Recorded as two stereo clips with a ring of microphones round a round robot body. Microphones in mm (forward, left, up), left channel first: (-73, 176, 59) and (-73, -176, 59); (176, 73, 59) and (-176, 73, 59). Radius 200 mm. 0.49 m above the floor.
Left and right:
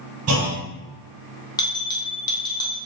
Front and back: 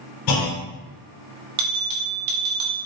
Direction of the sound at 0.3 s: 35° right.